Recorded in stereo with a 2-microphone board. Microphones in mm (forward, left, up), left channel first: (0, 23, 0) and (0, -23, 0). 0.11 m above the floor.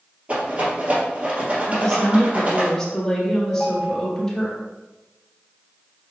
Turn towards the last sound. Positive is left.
turn(degrees=-60)  # may be behind; listen again after turning